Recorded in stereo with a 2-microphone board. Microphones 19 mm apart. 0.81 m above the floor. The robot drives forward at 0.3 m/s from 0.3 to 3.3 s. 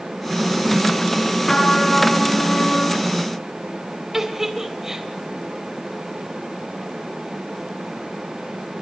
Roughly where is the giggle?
Right.